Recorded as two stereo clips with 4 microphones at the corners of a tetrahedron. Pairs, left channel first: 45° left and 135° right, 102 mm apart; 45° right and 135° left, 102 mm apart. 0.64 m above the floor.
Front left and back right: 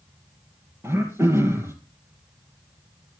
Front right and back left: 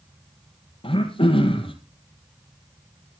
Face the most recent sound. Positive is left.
turn(degrees=-70)